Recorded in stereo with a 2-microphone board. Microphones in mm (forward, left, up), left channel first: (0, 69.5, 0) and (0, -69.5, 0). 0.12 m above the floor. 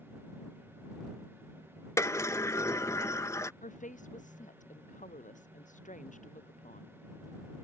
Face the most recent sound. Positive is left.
turn(degrees=70)  # may be behind; listen again after turning